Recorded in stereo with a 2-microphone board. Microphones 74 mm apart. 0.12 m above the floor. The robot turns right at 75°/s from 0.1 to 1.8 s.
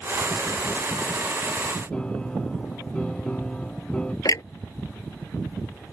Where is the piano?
15° left (ahead or behind).